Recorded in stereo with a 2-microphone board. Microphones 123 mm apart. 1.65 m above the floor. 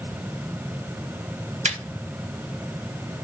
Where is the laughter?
80° right, 0.9 m.